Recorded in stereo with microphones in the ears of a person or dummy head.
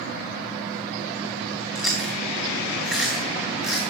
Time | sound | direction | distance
1.8 | chewing | 5° left (ahead or behind) | 2.5 m